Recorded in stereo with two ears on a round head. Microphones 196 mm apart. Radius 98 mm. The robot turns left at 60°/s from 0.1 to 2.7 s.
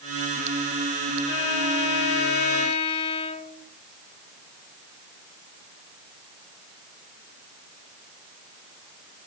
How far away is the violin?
About 4 m.